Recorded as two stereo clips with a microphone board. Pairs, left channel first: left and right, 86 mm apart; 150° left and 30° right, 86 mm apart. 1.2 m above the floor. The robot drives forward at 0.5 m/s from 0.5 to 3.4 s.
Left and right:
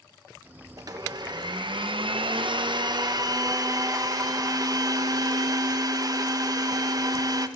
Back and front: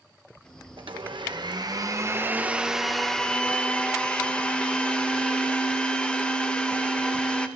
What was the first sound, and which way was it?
A blender, 45° right.